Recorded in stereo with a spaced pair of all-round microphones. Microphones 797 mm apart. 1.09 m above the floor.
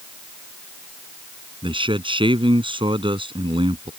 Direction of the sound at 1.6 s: 5° right (ahead or behind).